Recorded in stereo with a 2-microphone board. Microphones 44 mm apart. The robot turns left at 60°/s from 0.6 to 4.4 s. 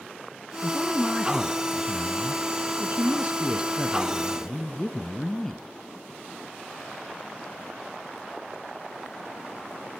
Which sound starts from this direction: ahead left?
A man speaking, at 0.6 s.